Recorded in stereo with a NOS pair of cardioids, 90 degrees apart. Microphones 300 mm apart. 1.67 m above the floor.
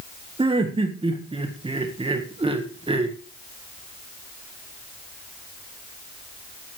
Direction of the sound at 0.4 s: 20° right.